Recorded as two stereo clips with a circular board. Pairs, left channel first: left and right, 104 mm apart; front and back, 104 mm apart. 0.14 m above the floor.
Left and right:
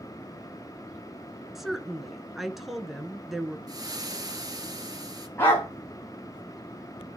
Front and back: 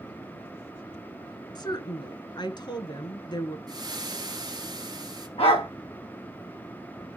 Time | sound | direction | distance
1.6 | a woman speaking | 5° right | 1.3 m
3.7 | frying | 135° right | 1.9 m
5.4 | a dog barking | 25° left | 7.5 m